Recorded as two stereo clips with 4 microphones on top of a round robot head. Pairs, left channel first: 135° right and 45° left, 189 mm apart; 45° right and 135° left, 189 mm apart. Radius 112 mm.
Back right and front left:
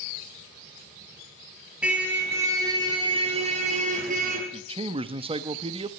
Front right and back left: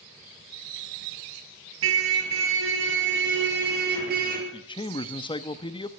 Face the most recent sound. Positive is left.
turn(degrees=5)